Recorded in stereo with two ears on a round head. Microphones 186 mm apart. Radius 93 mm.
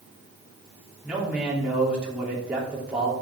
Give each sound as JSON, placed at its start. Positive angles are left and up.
{"t": 1.0, "sound": "a man speaking", "side_deg": -5, "distance_m": 3.0}